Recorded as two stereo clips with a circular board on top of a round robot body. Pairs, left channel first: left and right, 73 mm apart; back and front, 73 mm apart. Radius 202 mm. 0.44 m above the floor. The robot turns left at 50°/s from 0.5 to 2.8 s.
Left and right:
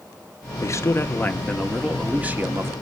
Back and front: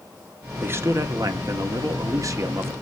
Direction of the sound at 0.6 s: 55° left.